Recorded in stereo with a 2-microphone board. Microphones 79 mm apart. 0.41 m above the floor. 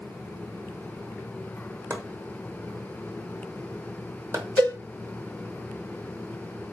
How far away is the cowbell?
About 2 m.